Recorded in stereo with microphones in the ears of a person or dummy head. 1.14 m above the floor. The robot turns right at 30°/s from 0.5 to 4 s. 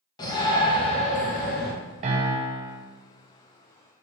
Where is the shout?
20° left, 1.2 m; by 1.7 s 60° left, 1.2 m.